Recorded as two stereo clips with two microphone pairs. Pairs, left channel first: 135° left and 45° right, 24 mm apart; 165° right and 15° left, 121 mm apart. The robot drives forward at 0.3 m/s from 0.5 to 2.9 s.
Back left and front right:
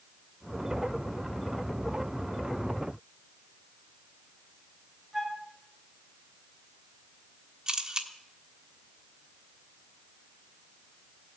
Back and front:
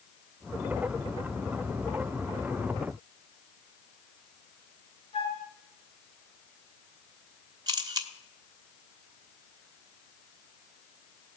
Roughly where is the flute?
Behind right.